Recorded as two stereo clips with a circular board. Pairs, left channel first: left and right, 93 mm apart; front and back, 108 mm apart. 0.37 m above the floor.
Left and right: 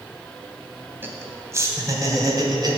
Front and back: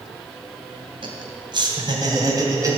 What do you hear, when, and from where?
1.0 s laughter: 155° right, 2.5 m; by 2.8 s 125° right, 2.5 m